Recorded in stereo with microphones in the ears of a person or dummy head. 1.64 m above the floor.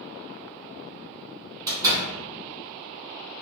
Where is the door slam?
15° right (ahead or behind), 0.9 m.